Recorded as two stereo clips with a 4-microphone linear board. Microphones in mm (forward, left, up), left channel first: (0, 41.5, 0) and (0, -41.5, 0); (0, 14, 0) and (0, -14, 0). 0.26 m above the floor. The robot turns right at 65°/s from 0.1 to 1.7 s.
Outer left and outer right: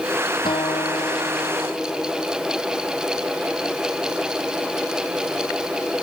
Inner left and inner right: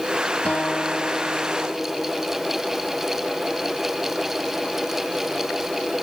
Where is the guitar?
80° left; by 2.3 s 160° left.